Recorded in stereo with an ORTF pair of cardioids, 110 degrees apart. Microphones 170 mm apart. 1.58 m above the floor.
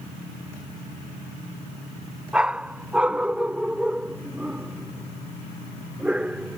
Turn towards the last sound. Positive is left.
turn(degrees=-5)